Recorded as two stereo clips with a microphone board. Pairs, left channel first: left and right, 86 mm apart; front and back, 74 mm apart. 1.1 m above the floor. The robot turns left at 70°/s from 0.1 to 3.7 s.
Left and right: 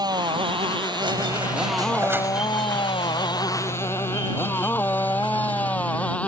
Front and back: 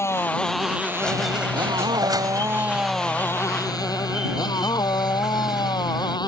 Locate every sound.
0.0 s a motorcycle: 55° right; by 6.3 s 15° left
1.0 s a squeak: 75° right; by 6.2 s 95° left